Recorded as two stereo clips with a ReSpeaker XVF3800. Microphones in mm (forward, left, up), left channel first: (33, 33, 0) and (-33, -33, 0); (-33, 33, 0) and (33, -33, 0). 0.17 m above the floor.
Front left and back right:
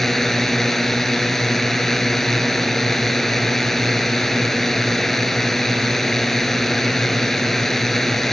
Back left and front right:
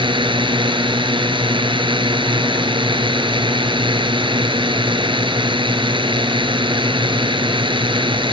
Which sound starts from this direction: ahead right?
A drone, at 0.0 s.